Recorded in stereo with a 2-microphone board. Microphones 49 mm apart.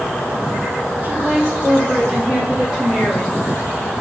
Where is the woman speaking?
45° right (ahead or behind), 1.1 m; by 3.4 s 20° left (ahead or behind), 1.2 m.